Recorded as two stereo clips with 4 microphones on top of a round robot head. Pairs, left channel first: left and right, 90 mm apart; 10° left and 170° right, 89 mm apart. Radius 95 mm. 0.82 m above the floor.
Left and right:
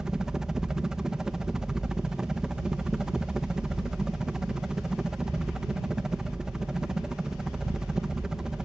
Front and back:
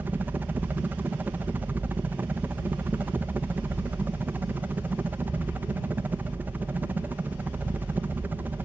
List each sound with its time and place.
0.0 s a helicopter: 160° right